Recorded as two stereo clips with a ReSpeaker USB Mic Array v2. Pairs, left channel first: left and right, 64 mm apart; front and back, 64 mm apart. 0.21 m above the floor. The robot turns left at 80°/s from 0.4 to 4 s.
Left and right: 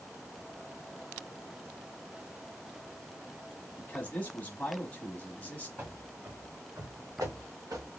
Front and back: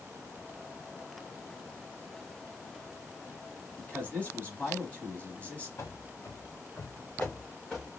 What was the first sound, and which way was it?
A man speaking, 60° left.